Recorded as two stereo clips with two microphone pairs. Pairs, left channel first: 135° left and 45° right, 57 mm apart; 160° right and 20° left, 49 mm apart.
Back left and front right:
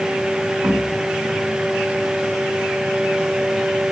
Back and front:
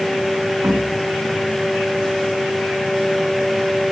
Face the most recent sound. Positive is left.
turn(degrees=5)